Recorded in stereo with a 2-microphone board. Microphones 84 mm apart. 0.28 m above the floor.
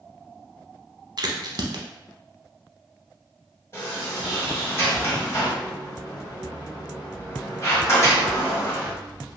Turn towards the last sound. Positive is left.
turn(degrees=30)  # may be behind; listen again after turning